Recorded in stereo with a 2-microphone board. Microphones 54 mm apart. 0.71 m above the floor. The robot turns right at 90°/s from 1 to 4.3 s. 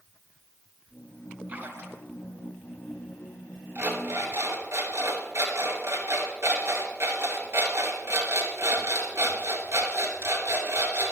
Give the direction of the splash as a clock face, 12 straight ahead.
5 o'clock.